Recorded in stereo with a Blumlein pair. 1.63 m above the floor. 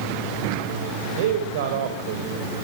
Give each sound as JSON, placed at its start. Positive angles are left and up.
{"t": 1.2, "sound": "a man speaking", "azimuth_deg": -55, "distance_m": 7.0}